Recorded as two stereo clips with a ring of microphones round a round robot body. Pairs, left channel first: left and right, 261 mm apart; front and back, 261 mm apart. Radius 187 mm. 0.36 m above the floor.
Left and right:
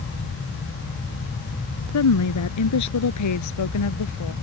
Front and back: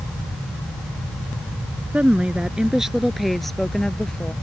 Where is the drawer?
No drawer in this recording.